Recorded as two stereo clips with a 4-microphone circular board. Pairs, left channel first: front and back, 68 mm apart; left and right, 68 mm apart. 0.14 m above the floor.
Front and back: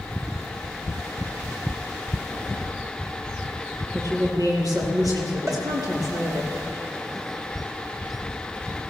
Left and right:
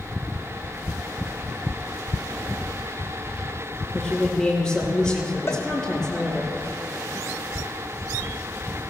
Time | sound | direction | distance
3.9 | a woman speaking | 170° left | 4 m
5.5 | a cowbell | 135° left | 1.7 m